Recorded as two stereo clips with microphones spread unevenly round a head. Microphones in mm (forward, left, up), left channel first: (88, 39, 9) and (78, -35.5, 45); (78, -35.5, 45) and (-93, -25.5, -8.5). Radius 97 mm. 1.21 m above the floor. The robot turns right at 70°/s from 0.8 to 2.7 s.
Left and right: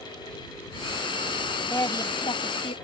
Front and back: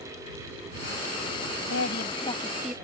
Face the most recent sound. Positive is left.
turn(degrees=90)